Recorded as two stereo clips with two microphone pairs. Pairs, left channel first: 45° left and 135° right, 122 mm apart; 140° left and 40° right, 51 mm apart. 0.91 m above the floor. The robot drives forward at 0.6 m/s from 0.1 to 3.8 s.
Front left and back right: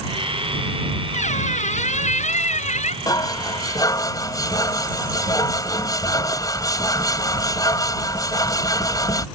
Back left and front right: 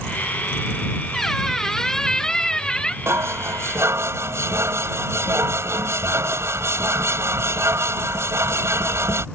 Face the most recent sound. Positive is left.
turn(degrees=-15)